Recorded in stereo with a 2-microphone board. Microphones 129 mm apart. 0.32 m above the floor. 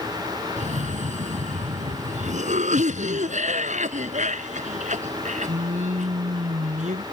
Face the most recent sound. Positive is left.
turn(degrees=-70)  # may be behind; listen again after turning